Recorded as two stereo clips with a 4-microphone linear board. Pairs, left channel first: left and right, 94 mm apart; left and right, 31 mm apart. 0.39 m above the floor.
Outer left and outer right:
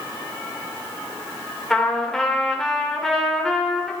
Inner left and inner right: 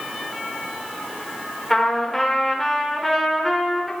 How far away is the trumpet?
About 1.1 m.